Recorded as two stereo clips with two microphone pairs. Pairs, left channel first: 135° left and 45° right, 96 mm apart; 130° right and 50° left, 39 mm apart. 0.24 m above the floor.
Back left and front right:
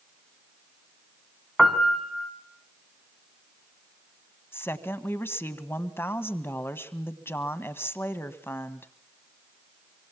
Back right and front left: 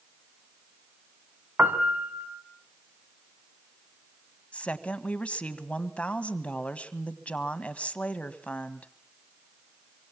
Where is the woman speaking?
175° right, 1.5 m.